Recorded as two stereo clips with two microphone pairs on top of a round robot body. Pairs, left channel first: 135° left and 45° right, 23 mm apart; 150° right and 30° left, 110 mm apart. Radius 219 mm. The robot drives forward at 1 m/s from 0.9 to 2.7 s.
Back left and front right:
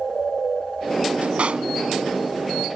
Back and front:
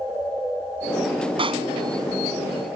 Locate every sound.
1.4 s a pop: 15° right